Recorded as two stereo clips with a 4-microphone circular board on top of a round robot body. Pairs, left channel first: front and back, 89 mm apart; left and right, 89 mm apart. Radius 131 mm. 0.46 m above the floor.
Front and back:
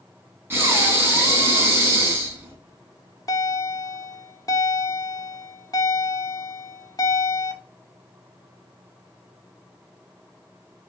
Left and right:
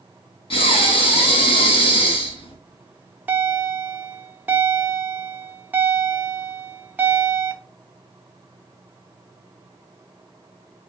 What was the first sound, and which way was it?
Breathing, 115° left.